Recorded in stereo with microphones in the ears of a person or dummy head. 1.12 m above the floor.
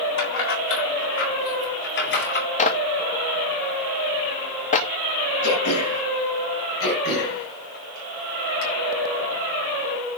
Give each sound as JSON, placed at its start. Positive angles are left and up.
{"t": 0.2, "sound": "keys jangling", "side_deg": 65, "distance_m": 4.0}
{"t": 2.6, "sound": "a clap", "side_deg": 40, "distance_m": 1.2}
{"t": 5.4, "sound": "throat clearing", "side_deg": 60, "distance_m": 6.0}
{"t": 6.8, "sound": "throat clearing", "side_deg": 55, "distance_m": 4.5}